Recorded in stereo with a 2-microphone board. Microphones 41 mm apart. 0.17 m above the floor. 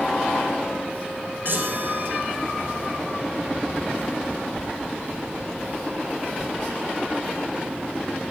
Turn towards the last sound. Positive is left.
turn(degrees=-55)  # may be behind; listen again after turning